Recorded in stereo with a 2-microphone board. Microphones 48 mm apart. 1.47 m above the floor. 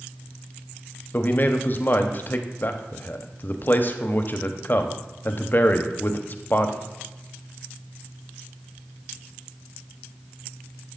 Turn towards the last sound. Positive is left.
turn(degrees=45)  # may be behind; listen again after turning